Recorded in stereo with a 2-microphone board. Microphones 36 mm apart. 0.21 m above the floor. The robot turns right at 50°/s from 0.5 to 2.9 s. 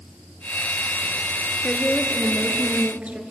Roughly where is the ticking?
No ticking in this recording.